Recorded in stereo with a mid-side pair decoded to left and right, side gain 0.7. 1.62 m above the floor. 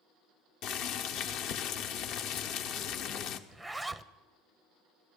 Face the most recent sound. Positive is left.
turn(degrees=-10)